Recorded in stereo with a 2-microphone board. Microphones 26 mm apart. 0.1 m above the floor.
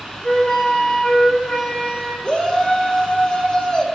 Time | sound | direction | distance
0.2 | a flute | 35° left (ahead or behind) | 7.5 m
2.2 | a shout | 40° left (ahead or behind) | 5.5 m